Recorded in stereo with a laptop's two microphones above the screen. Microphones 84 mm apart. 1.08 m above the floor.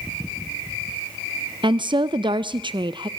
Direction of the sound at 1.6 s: 65° right (ahead or behind).